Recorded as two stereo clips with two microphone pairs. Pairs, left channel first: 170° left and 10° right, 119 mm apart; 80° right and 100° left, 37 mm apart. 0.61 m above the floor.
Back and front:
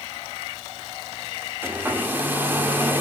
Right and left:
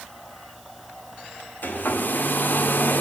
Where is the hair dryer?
80° right, 1.8 m.